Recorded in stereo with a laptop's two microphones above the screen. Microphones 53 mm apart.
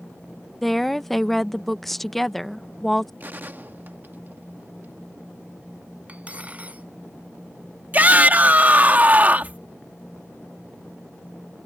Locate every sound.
0.6 s a woman speaking: 5° left (ahead or behind)
3.2 s a gunshot: 40° right (ahead or behind)
6.1 s cutlery clinking: 25° right (ahead or behind)
7.9 s a shout: 35° right (ahead or behind)